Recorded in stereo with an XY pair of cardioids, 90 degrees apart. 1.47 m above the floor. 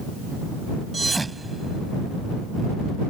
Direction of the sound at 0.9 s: 20° right.